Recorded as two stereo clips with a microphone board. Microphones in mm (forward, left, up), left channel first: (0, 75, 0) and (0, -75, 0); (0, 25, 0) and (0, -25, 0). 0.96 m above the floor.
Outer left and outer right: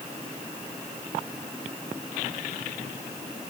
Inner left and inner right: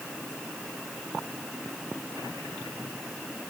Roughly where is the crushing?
I don't hear crushing.